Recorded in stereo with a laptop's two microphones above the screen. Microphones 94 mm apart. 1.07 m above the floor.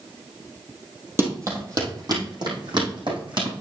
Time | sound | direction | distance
1.2 | running footsteps | 30° right (ahead or behind) | 2 m